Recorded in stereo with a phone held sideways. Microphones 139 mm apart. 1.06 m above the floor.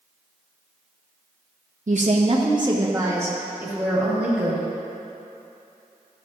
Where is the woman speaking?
65° right (ahead or behind), 0.8 m; by 4.6 s 5° right (ahead or behind), 3 m.